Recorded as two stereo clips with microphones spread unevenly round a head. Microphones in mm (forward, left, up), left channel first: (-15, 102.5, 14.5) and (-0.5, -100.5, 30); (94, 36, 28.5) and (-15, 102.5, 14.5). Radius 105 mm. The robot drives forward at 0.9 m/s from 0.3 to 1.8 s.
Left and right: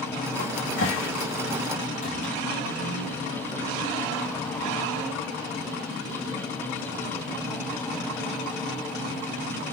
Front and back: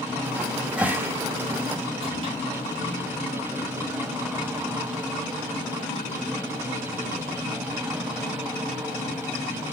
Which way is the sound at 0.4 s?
55° left.